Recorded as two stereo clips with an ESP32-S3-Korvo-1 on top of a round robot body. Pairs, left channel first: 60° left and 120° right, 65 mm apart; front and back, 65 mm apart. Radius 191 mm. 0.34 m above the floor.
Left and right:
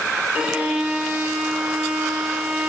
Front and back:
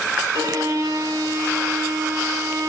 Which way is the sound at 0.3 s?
170° left.